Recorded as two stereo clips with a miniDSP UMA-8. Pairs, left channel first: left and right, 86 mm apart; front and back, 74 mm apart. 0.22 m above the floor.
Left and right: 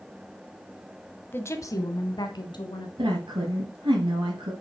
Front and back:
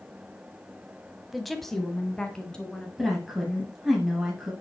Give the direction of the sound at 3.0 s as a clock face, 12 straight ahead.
3 o'clock.